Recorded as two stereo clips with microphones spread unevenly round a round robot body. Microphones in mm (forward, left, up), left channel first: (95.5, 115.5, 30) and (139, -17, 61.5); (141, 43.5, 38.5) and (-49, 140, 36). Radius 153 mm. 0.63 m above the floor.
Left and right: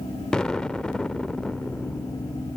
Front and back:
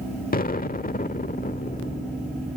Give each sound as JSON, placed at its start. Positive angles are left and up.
{"t": 0.3, "sound": "an explosion", "azimuth_deg": 25}